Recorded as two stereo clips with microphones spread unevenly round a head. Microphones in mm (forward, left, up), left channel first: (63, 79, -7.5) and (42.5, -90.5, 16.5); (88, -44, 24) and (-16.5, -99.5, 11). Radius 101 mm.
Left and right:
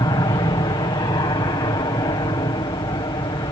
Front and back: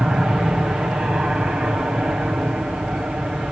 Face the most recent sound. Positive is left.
turn(degrees=130)